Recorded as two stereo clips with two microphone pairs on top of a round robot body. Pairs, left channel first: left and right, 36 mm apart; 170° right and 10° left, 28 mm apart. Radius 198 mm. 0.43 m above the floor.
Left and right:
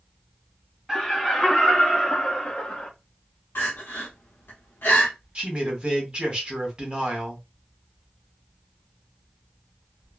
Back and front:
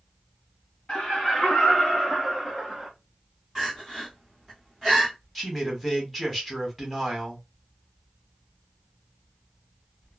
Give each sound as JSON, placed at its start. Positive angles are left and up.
{"t": 0.9, "sound": "laughter", "azimuth_deg": -175, "distance_m": 1.7}
{"t": 3.5, "sound": "crying", "azimuth_deg": 105, "distance_m": 0.8}
{"t": 5.3, "sound": "a man speaking", "azimuth_deg": -95, "distance_m": 1.4}